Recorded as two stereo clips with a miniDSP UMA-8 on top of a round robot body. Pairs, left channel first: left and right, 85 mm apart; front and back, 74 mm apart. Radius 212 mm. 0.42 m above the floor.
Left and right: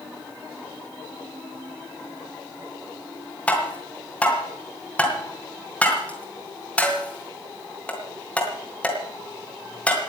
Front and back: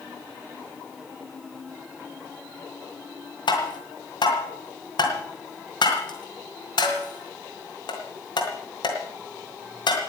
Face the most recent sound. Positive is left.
turn(degrees=15)